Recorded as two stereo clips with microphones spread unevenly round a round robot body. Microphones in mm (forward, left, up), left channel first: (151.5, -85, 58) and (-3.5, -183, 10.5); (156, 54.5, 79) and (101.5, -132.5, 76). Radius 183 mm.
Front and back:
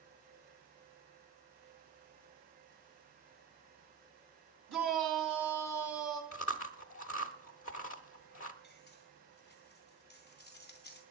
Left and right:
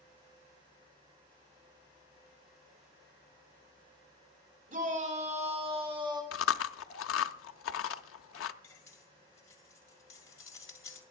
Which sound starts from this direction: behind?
A shout, at 4.7 s.